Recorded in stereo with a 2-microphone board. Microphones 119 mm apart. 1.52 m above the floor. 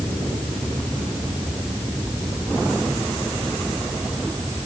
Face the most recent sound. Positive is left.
No sound to turn to.